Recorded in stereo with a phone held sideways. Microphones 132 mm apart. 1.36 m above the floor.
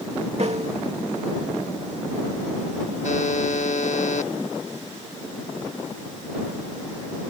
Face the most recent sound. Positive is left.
turn(degrees=65)  # may be behind; listen again after turning